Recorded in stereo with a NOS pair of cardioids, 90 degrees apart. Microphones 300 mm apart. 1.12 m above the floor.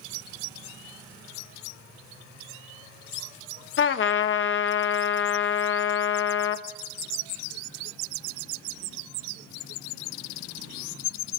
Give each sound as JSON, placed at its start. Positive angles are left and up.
{"t": 3.8, "sound": "a trumpet", "azimuth_deg": 45, "distance_m": 1.3}